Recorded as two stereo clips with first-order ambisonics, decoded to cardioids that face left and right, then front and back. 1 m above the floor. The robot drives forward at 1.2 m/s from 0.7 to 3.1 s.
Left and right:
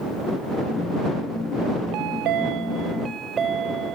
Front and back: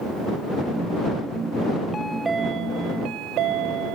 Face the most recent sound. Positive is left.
turn(degrees=-150)